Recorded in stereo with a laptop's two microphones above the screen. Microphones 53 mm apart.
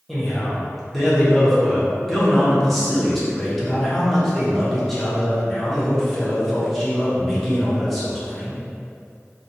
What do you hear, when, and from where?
0.1 s a man speaking: 5° left (ahead or behind), 0.6 m